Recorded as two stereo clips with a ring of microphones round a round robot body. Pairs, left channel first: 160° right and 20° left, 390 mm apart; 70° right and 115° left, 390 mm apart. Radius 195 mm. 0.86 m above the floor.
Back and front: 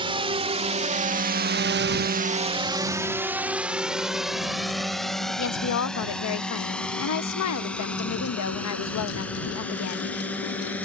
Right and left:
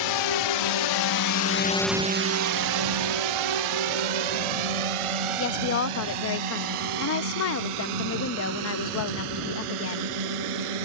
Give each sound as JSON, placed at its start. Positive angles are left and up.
{"t": 0.0, "sound": "a drone", "azimuth_deg": -55}
{"t": 5.4, "sound": "a woman speaking", "azimuth_deg": -115}